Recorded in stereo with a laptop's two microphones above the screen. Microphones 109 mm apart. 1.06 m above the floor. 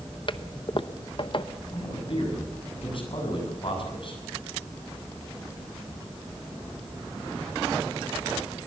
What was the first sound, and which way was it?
A toilet flushing, 50° left (ahead or behind).